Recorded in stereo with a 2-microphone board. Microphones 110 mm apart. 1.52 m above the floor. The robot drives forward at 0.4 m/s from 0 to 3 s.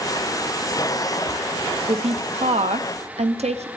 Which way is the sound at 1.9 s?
65° right (ahead or behind).